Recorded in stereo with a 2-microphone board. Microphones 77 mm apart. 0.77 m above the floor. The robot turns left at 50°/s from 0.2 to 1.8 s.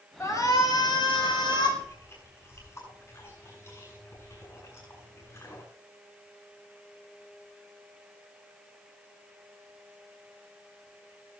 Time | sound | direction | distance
0.2 | a shout | 145° left | 5 m
1.8 | chewing | 35° left (ahead or behind) | 8 m